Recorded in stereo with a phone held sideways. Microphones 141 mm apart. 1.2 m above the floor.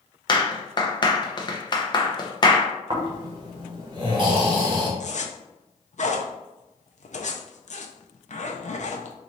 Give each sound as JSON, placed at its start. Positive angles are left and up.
{"t": 0.3, "sound": "a clap", "side_deg": 30, "distance_m": 0.7}
{"t": 2.9, "sound": "snoring", "side_deg": -35, "distance_m": 1.1}
{"t": 5.0, "sound": "a zipper", "side_deg": 55, "distance_m": 0.5}